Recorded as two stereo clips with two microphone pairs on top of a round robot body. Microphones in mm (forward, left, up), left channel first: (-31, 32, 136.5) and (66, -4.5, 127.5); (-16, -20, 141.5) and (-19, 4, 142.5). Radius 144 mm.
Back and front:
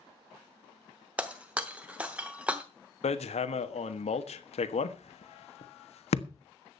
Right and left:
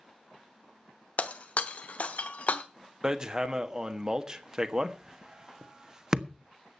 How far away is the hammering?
About 1.5 m.